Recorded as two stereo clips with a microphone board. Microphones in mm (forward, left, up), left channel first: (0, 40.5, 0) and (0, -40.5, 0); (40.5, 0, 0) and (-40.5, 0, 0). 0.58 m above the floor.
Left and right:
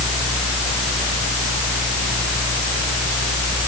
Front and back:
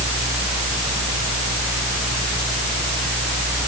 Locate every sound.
Only background noise.